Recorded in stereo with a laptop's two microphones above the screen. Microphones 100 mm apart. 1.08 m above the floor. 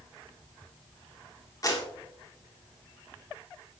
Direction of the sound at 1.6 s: 35° left (ahead or behind).